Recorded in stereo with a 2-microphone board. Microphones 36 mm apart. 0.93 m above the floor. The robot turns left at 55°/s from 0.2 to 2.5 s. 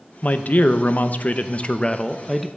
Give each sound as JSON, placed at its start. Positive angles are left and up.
{"t": 0.2, "sound": "a man speaking", "azimuth_deg": 125, "distance_m": 0.5}